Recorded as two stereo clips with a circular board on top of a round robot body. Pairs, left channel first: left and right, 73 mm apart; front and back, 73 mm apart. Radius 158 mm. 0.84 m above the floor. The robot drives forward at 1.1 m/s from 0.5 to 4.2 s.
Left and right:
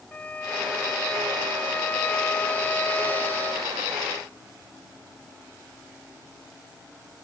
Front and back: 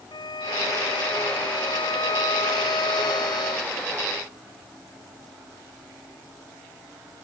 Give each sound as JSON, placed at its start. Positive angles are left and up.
{"t": 0.1, "sound": "a violin", "azimuth_deg": 20}